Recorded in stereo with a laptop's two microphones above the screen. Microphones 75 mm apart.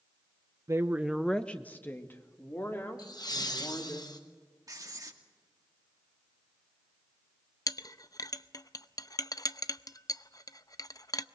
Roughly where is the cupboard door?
No cupboard door in this recording.